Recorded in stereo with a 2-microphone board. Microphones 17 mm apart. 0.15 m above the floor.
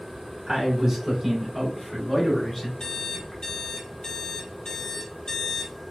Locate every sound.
0.5 s a man speaking: 35° right (ahead or behind), 1.3 m; by 2.7 s 20° left (ahead or behind), 1.2 m
2.8 s an alarm clock: 50° left (ahead or behind), 0.9 m